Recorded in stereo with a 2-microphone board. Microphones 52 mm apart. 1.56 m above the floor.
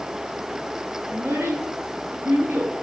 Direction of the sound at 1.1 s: 50° right (ahead or behind).